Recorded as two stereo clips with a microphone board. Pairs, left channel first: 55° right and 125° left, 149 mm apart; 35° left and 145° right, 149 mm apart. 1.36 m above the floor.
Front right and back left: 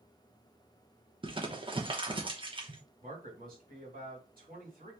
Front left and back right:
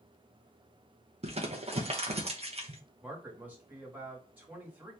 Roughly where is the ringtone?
No ringtone in this recording.